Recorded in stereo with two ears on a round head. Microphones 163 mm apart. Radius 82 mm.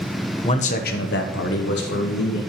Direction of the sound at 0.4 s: 30° left (ahead or behind).